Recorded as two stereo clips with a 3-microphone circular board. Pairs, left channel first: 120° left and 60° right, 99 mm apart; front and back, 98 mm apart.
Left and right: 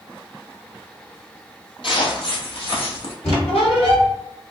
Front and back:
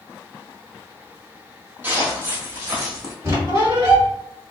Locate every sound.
1.8 s footsteps: 110° left, 1.6 m; by 3.1 s 120° left, 3 m
3.2 s a squeak: 120° left, 2.0 m